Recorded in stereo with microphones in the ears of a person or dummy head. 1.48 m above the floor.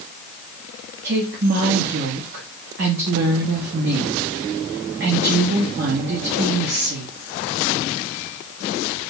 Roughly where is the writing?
I don't hear writing.